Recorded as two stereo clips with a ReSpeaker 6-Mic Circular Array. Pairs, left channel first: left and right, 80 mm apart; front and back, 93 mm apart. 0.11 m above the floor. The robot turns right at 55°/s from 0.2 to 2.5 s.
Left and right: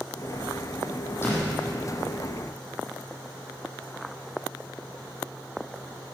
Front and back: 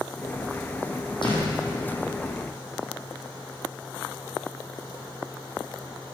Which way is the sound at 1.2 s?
30° left.